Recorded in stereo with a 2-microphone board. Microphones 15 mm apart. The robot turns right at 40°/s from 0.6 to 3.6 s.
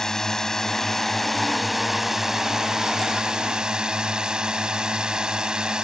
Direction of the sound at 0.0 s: 150° left.